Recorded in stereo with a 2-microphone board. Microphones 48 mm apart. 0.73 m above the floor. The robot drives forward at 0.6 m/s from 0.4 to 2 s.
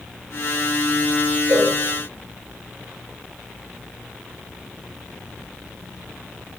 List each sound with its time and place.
1.5 s a cowbell: 70° right (ahead or behind), 1.2 m; by 1.7 s 75° right (ahead or behind), 1.1 m